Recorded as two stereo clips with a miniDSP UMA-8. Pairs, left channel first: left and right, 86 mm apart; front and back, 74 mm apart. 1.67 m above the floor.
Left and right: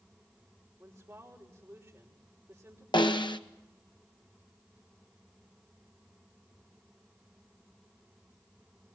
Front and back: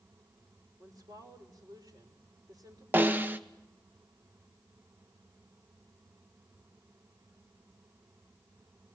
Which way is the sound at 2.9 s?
115° left.